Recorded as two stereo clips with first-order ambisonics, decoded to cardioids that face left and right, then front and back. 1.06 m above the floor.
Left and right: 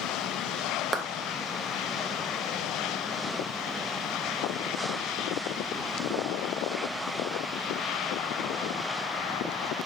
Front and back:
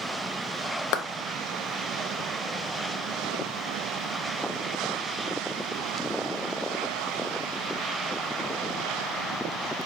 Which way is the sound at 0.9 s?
15° right.